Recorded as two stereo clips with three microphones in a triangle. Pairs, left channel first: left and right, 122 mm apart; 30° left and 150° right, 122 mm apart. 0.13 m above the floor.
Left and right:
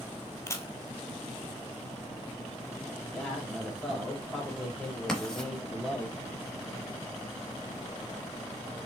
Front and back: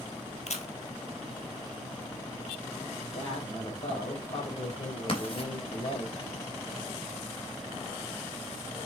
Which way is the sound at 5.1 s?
5° left.